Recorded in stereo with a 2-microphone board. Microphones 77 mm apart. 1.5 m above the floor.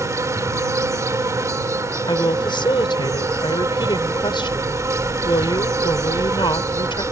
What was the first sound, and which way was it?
An insect, 40° right (ahead or behind).